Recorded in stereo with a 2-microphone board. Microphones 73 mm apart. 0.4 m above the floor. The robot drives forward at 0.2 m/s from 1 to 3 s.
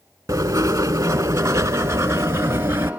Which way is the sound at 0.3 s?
45° right (ahead or behind).